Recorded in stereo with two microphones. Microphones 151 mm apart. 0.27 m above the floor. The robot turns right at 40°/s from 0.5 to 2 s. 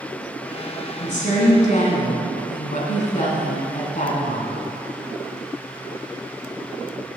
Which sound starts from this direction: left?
A woman speaking, at 1.0 s.